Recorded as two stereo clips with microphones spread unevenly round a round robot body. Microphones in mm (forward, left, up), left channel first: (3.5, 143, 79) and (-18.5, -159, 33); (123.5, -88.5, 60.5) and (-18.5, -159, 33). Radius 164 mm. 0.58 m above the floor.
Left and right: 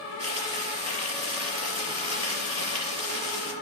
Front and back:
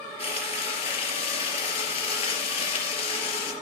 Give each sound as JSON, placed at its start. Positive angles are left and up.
{"t": 0.2, "sound": "frying", "azimuth_deg": -20, "distance_m": 4.5}